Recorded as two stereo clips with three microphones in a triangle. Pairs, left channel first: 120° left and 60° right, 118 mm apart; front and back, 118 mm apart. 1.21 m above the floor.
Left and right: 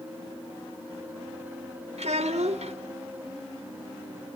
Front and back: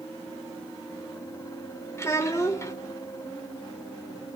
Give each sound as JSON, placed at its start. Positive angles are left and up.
{"t": 2.0, "sound": "a child speaking", "azimuth_deg": -65, "distance_m": 2.0}